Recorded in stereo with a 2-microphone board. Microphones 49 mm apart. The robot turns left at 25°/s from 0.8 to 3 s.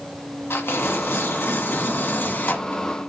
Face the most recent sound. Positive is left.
turn(degrees=40)